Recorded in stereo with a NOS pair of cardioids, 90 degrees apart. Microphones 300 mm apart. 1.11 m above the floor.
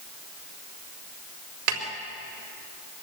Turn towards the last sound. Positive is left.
turn(degrees=-65)